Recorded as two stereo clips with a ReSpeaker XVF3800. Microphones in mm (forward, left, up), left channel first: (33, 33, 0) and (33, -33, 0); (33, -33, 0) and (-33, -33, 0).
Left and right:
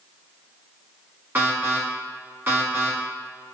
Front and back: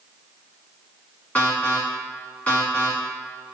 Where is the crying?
I don't hear crying.